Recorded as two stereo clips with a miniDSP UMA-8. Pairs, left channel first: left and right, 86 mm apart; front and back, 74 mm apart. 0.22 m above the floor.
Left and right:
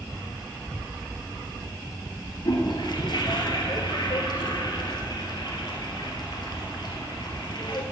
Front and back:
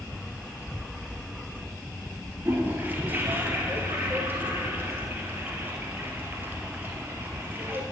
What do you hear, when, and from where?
2.5 s a toilet flushing: 115° left, 1.6 m